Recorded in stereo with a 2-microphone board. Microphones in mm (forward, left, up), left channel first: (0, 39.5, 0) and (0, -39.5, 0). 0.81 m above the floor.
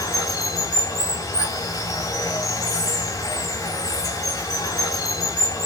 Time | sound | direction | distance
0.0 | running water | 40° left (ahead or behind) | 3.5 m